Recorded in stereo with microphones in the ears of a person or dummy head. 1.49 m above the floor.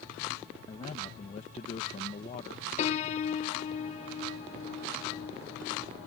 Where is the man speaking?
35° left (ahead or behind).